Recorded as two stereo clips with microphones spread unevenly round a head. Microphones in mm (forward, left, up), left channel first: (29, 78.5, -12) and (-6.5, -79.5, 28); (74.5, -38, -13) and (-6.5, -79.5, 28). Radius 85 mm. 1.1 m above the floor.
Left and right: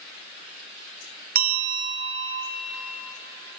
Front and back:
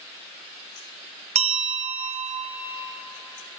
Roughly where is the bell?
Behind right.